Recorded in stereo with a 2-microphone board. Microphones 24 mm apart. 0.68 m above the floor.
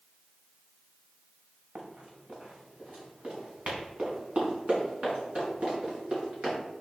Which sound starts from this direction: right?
Running footsteps, at 1.8 s.